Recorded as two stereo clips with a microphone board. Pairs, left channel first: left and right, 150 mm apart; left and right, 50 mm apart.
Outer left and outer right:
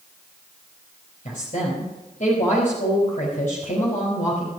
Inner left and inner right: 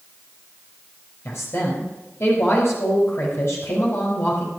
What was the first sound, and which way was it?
A woman speaking, 60° left (ahead or behind).